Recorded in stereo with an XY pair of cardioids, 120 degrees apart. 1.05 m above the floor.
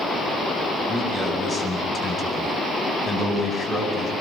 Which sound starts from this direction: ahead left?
A man speaking, at 0.9 s.